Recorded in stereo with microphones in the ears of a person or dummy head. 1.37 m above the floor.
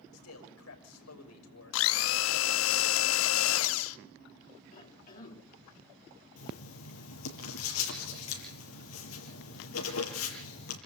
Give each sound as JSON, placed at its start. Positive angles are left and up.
{"t": 0.1, "sound": "a man speaking", "side_deg": 90, "distance_m": 7.0}
{"t": 1.7, "sound": "a blender", "side_deg": 75, "distance_m": 0.7}
{"t": 4.7, "sound": "a cough", "side_deg": 45, "distance_m": 2.5}
{"t": 6.4, "sound": "writing", "side_deg": 80, "distance_m": 7.0}